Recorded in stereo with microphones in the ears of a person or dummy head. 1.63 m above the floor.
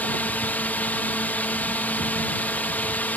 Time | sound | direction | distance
0.0 | a drone | 10° left (ahead or behind) | ?